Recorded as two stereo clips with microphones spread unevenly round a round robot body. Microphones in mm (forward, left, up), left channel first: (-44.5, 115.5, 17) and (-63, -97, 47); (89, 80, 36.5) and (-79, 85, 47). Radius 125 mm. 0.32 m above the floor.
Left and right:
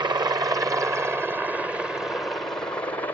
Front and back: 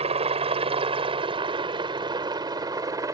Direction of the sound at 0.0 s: 160° right.